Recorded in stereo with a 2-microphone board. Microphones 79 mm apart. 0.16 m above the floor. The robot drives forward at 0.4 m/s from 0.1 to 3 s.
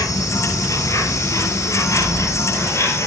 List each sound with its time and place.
0.0 s an insect: 45° left (ahead or behind), 3.5 m; by 3.1 s 35° left (ahead or behind), 4.5 m